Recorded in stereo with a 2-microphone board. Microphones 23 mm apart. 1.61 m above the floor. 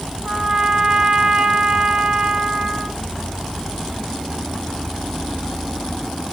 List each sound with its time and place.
0.2 s a trumpet: 55° right (ahead or behind), 1.8 m